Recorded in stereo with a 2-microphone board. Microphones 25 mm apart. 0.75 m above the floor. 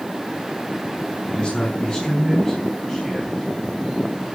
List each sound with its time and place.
1.3 s a man speaking: 45° left (ahead or behind), 6 m; by 3.4 s 15° left (ahead or behind), 4.5 m